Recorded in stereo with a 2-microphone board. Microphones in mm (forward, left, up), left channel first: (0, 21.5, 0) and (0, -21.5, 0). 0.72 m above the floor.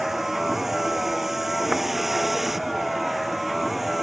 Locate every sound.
0.0 s a vehicle: 10° right (ahead or behind); by 4.0 s 5° right (ahead or behind)